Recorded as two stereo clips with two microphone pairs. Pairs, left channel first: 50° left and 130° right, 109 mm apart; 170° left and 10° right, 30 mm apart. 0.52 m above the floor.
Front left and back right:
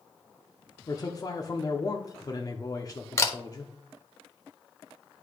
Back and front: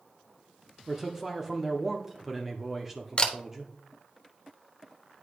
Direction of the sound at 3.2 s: 110° left.